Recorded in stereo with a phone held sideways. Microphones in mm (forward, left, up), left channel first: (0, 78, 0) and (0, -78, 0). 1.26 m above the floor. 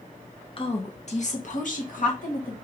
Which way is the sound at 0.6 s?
35° left (ahead or behind).